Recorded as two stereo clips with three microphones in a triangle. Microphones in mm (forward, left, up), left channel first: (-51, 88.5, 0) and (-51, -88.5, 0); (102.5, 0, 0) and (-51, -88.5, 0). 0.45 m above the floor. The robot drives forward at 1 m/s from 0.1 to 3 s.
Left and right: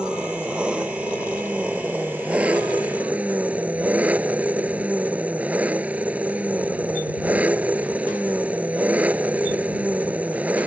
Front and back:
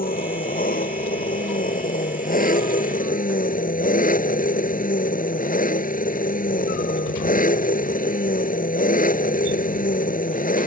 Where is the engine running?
5° right; by 10.7 s 10° right.